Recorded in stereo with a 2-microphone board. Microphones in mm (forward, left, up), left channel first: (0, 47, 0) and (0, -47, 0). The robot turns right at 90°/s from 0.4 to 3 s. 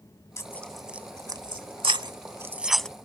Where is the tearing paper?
30° left (ahead or behind); by 2.9 s 10° left (ahead or behind).